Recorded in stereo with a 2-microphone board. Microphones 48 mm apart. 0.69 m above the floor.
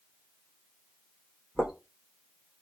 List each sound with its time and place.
1.6 s footsteps: 10° right (ahead or behind), 1.4 m